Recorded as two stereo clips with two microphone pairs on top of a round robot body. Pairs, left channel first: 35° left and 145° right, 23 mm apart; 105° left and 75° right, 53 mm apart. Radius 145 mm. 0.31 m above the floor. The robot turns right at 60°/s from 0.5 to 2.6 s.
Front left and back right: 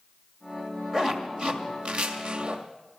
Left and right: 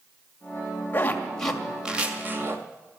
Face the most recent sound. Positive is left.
turn(degrees=-105)